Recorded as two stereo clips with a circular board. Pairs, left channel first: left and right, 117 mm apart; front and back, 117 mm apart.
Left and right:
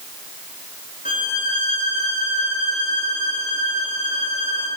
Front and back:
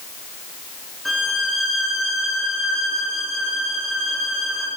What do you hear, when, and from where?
1.1 s a violin: 90° left, 9 m